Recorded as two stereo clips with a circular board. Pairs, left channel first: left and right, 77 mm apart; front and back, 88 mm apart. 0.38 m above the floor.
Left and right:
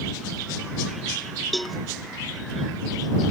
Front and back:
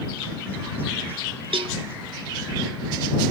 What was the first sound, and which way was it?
A cowbell, straight behind.